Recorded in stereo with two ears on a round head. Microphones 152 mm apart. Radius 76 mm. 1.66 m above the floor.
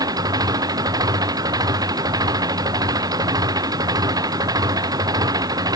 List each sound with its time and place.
0.0 s an engine running: 25° right (ahead or behind)